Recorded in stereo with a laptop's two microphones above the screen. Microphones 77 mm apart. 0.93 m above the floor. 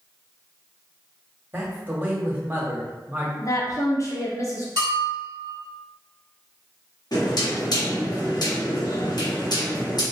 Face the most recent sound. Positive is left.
turn(degrees=60)  # may be behind; listen again after turning